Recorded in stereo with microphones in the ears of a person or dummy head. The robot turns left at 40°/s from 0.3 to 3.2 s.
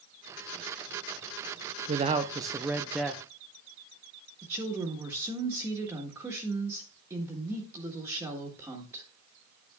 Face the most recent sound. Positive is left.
turn(degrees=-15)  # may be behind; listen again after turning